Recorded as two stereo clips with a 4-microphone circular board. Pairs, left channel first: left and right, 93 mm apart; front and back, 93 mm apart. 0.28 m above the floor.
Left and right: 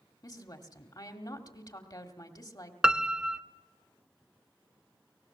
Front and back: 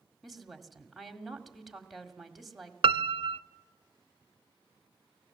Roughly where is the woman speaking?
Left.